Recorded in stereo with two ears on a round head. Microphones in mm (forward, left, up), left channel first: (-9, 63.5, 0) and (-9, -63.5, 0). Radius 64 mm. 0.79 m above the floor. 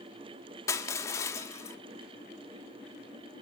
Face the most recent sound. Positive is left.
turn(degrees=20)  # may be behind; listen again after turning